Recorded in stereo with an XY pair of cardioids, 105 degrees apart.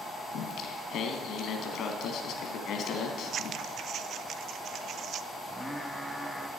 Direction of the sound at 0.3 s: 70° left.